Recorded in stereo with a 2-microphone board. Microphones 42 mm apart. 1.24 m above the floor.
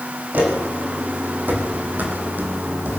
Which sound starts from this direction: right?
Footsteps, at 0.3 s.